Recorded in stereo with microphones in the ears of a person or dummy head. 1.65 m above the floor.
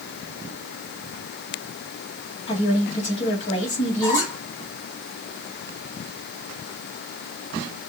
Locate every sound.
2.5 s a woman speaking: 30° left (ahead or behind), 2.5 m
4.0 s a squeak: 15° left (ahead or behind), 2.5 m